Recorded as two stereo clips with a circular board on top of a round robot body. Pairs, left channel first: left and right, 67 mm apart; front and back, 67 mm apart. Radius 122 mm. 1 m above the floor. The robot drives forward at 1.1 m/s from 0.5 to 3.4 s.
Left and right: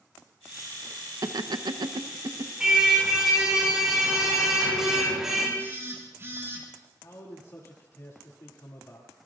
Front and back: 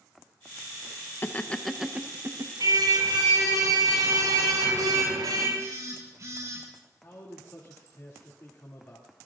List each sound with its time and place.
1.2 s laughter: 60° right, 1.1 m; by 2.5 s 135° right, 1.3 m
2.6 s a car horn: 170° right, 5.5 m; by 5.5 s 175° right, 6.5 m
5.6 s a phone buzzing: 140° right, 5.5 m
7.0 s a man speaking: 50° left, 2.5 m